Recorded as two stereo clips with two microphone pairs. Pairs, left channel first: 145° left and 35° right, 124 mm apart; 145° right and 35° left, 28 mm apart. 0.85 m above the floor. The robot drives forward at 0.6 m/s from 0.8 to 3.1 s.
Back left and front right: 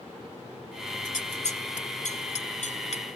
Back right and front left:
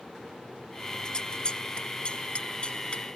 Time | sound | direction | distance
1.1 | scissors | 155° left | ?